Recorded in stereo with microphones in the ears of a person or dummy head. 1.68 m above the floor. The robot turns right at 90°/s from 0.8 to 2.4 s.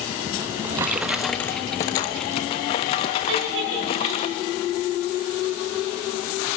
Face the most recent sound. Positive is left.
turn(degrees=-75)  # may be behind; listen again after turning